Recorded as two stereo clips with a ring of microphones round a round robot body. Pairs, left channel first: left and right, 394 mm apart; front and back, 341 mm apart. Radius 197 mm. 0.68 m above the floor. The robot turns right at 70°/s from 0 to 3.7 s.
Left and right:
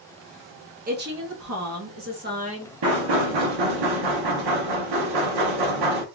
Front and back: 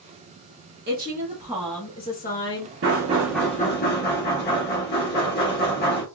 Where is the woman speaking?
145° right, 0.9 m; by 2.7 s 15° right, 0.9 m.